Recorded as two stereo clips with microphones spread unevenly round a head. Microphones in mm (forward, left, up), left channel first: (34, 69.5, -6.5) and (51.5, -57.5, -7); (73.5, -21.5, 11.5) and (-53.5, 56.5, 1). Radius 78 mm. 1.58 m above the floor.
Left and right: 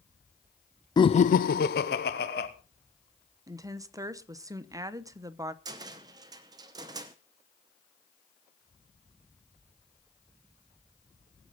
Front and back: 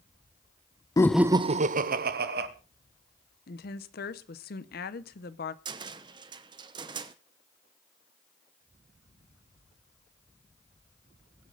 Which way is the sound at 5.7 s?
145° right.